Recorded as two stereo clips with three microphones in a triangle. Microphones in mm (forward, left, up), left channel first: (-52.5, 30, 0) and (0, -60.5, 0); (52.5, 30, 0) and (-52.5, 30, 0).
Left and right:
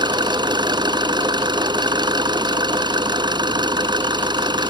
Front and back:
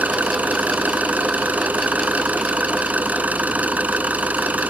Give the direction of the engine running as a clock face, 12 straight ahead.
3 o'clock.